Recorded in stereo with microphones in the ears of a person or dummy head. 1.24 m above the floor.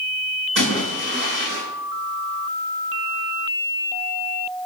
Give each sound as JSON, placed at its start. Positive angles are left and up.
{"t": 0.6, "sound": "a splash", "side_deg": -60, "distance_m": 5.5}